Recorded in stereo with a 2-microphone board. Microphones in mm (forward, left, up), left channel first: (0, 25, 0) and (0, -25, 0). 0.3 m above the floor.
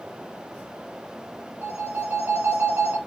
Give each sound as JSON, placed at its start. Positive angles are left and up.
{"t": 1.6, "sound": "a phone ringing", "side_deg": -50, "distance_m": 2.0}